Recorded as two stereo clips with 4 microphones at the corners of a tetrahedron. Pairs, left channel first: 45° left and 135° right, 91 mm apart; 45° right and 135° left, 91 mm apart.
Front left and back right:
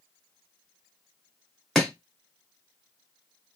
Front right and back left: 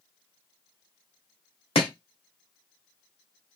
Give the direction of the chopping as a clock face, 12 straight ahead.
1 o'clock.